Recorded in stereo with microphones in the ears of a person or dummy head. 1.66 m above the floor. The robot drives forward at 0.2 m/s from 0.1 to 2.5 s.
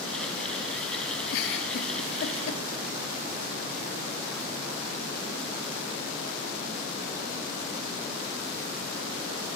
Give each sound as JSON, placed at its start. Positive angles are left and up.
{"t": 1.3, "sound": "a giggle", "side_deg": 65, "distance_m": 0.6}